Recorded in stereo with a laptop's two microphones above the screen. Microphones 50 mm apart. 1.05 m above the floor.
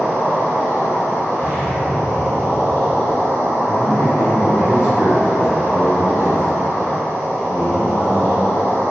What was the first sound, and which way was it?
An insect, 60° right (ahead or behind).